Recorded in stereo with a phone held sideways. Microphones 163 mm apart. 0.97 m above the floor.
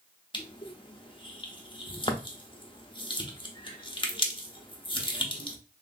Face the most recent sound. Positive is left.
turn(degrees=35)  # may be behind; listen again after turning